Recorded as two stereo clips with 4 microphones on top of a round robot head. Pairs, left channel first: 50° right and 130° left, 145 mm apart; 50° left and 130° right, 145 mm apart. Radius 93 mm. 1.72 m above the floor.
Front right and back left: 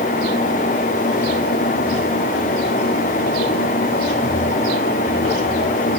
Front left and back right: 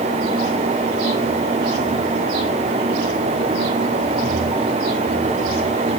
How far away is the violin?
I don't hear a violin.